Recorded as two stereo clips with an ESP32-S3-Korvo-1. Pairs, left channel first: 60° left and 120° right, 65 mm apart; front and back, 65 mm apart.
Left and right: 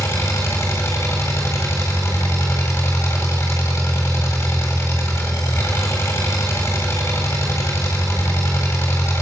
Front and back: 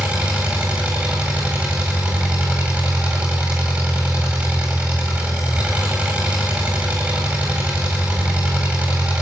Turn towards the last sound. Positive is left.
turn(degrees=110)